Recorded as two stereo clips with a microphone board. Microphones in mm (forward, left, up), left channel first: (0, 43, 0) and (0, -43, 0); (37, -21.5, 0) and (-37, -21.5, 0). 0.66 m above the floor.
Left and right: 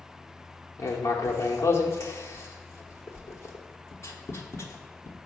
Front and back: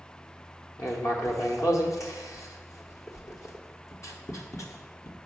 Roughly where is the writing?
Ahead left.